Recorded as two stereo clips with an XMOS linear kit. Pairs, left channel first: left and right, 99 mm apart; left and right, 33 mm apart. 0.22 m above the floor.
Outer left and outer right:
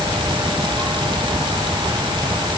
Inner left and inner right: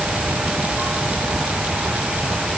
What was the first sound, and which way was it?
Only background noise.